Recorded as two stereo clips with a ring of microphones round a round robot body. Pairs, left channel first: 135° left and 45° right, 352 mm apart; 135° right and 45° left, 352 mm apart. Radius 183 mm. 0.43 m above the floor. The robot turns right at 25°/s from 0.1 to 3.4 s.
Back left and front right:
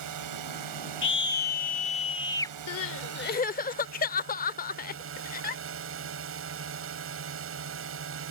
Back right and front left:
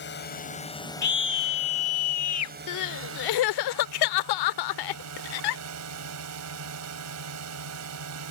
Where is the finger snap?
I don't hear a finger snap.